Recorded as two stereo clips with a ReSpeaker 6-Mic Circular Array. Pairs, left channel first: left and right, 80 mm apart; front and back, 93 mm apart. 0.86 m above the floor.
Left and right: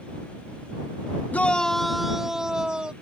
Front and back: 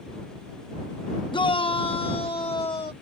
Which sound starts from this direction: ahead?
A shout, at 1.3 s.